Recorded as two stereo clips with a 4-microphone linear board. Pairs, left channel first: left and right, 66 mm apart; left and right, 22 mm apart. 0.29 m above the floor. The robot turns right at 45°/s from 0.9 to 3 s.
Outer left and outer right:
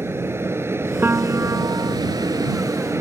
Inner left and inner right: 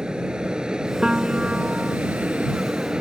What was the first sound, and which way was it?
An aircraft, 140° right.